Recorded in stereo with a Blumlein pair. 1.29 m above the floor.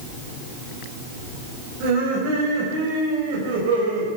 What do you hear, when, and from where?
1.8 s laughter: 45° right, 6 m; by 4.1 s 60° right, 4.5 m